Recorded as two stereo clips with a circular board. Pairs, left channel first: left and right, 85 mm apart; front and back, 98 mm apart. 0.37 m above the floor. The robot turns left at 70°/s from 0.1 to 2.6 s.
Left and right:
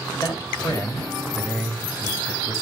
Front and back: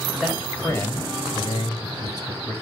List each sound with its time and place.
0.2 s a man speaking: 100° left, 2.0 m; by 2.5 s 65° right, 2.0 m